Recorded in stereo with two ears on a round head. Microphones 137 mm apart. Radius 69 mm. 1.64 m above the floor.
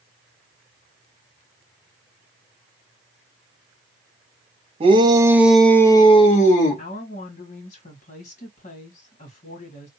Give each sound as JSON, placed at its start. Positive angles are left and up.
{"t": 4.8, "sound": "a shout", "side_deg": -35, "distance_m": 1.2}
{"t": 6.8, "sound": "a woman speaking", "side_deg": 45, "distance_m": 2.0}